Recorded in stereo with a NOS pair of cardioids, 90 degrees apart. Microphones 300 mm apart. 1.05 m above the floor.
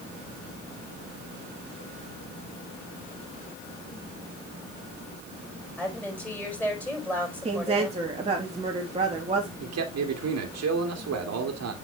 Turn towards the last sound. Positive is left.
turn(degrees=-60)